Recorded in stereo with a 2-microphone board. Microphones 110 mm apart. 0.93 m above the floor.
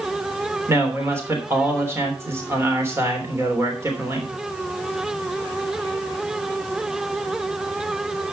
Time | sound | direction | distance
0.7 | a man speaking | 25° right (ahead or behind) | 3 m